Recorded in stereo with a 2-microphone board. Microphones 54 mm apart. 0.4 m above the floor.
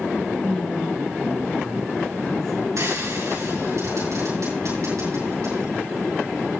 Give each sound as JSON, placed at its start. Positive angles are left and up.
{"t": 0.4, "sound": "a man speaking", "side_deg": 15, "distance_m": 3.5}
{"t": 2.8, "sound": "frying", "side_deg": -75, "distance_m": 8.0}